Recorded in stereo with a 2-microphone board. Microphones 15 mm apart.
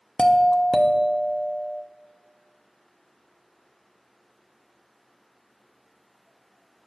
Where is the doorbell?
40° left (ahead or behind), 0.6 m.